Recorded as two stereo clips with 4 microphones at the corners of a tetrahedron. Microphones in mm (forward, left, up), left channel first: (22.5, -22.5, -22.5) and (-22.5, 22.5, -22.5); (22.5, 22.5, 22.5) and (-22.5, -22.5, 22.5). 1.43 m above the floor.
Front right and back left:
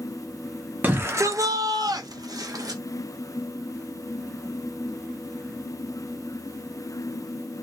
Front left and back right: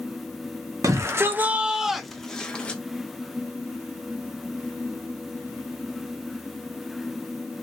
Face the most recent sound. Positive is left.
turn(degrees=115)